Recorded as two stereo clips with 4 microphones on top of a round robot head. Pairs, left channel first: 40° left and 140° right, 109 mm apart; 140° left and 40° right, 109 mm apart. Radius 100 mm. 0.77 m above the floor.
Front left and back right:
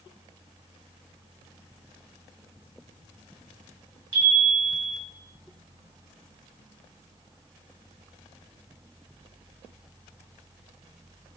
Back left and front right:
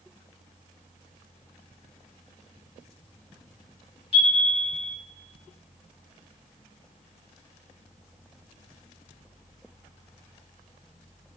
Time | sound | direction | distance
4.1 | a chime | 170° left | 1.7 m